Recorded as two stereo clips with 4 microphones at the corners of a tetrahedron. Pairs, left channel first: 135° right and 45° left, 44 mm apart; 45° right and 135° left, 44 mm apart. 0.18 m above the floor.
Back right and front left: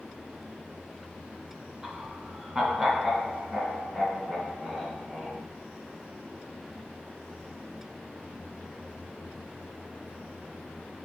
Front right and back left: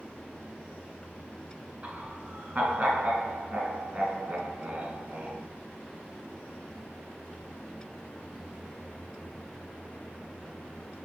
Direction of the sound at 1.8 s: 110° left.